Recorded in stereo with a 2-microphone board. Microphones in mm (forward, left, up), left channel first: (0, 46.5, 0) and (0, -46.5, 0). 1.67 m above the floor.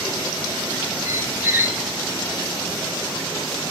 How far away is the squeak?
About 1.0 m.